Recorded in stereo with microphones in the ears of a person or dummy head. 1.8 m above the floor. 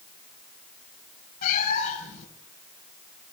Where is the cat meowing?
45° left (ahead or behind), 5.5 m.